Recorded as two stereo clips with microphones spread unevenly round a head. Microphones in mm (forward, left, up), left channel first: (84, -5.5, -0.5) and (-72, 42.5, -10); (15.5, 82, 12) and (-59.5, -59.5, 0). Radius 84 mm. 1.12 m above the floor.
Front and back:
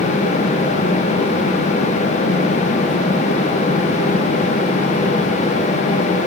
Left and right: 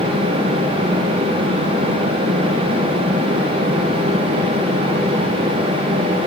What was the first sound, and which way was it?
Only background noise.